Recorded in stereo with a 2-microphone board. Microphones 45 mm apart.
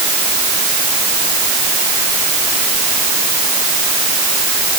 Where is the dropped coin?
No dropped coin in this recording.